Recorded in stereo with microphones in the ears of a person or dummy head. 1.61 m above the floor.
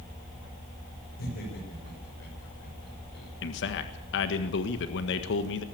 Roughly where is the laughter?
Left.